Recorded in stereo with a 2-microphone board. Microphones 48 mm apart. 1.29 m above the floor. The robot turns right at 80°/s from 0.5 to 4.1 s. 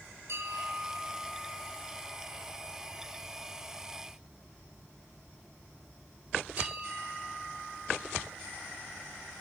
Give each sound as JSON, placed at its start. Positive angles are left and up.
{"t": 0.3, "sound": "a bell", "side_deg": -65, "distance_m": 3.5}